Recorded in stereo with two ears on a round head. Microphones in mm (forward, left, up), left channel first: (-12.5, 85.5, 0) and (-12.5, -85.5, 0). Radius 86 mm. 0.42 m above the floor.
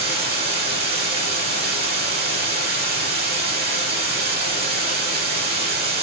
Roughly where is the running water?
Right.